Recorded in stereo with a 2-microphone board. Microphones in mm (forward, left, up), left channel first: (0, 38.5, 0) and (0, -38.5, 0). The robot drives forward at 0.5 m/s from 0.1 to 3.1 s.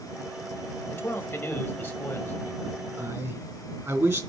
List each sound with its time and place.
0.9 s a man speaking: 30° left (ahead or behind), 1.3 m; by 2.9 s 25° left (ahead or behind), 1.7 m
3.0 s a man speaking: 40° right (ahead or behind), 2.5 m